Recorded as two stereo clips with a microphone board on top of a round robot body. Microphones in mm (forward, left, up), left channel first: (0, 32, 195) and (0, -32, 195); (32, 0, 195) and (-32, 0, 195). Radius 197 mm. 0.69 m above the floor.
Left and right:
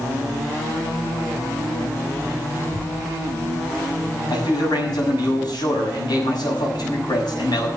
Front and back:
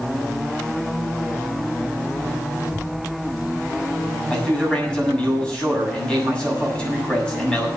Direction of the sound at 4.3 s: 75° left.